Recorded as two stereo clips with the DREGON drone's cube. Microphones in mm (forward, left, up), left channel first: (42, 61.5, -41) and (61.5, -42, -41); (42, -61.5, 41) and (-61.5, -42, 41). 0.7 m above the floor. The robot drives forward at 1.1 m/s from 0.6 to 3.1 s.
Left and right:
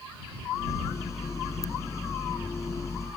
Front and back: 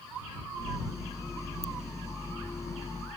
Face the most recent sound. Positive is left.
turn(degrees=165)